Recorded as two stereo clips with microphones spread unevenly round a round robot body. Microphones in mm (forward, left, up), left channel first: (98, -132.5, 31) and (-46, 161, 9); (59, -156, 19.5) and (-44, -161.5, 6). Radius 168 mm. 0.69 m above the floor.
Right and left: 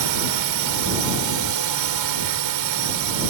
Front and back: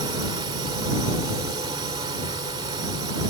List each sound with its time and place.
0.0 s a drone: 130° left